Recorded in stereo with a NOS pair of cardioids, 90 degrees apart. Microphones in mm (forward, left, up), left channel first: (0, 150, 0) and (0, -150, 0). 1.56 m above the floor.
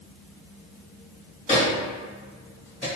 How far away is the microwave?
About 1.4 m.